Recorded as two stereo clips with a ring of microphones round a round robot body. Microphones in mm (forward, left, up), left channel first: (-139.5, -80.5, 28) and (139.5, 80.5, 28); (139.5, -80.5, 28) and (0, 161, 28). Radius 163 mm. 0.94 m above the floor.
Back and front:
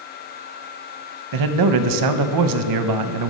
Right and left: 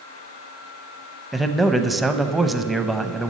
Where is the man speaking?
30° left, 0.7 m.